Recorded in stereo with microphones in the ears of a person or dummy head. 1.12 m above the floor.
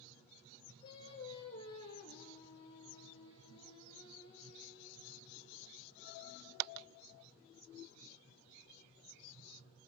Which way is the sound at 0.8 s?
35° left (ahead or behind).